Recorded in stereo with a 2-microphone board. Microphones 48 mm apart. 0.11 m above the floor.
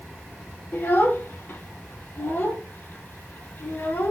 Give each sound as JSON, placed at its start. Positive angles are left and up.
{"t": 0.7, "sound": "a child speaking", "side_deg": 50, "distance_m": 2.0}